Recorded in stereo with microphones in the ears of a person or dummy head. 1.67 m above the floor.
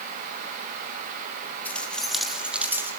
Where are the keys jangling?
10° left (ahead or behind), 3 m; by 2.9 s 10° right (ahead or behind), 3 m.